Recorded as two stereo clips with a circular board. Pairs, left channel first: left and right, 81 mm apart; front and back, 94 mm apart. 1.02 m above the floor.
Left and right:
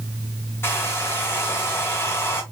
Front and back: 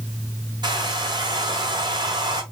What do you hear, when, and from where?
0.6 s a hair dryer: 150° left, 1.7 m